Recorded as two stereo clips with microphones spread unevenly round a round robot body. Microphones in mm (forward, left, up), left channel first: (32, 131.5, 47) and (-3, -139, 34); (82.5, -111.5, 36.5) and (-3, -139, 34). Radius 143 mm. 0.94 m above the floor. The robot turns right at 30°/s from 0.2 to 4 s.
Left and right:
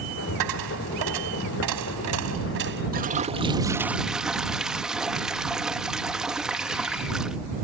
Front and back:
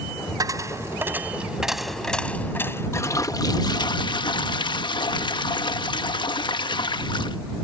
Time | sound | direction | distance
0.4 | a dropped coin | 115° right | ?
2.9 | a toilet flushing | 40° right | ?